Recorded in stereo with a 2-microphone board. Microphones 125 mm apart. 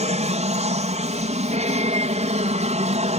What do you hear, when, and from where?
0.0 s an aircraft: 65° right (ahead or behind)